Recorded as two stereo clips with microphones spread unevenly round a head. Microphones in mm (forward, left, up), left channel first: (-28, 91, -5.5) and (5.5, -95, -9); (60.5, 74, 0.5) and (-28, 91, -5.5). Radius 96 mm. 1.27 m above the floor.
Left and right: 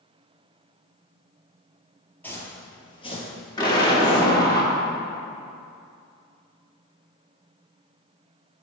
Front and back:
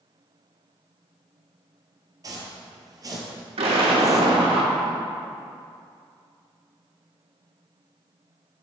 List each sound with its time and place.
2.2 s footsteps: 170° left, 1.5 m; by 4.4 s 125° left, 2.0 m
3.6 s an explosion: 170° left, 1.5 m